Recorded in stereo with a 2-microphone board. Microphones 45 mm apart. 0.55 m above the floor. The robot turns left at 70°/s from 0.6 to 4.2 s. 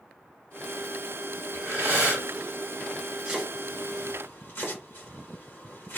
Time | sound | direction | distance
1.5 | breathing | 60° right | 1.7 m
3.2 | chopping | 10° right (ahead or behind) | 1.6 m